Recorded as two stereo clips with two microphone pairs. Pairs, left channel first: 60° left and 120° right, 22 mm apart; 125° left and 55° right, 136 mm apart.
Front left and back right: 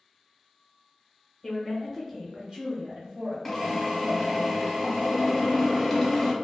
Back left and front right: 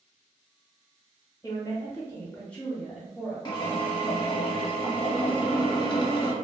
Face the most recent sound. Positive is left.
turn(degrees=145)